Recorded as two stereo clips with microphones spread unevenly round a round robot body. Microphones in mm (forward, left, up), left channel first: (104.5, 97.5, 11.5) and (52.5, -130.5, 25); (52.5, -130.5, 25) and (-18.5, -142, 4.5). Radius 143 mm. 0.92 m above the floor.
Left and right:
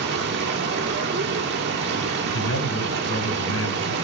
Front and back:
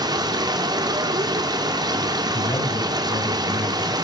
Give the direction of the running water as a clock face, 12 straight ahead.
5 o'clock.